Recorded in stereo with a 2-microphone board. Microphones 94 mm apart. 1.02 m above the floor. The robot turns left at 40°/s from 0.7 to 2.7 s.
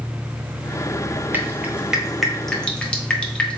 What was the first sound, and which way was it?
Dripping, 20° right (ahead or behind).